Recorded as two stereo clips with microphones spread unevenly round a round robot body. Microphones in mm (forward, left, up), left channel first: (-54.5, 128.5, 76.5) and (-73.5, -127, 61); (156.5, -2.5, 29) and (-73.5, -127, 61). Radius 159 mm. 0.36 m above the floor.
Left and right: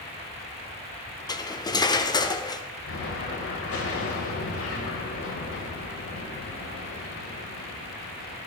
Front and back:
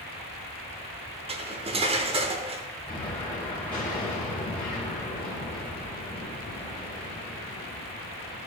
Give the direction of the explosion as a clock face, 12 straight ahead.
8 o'clock.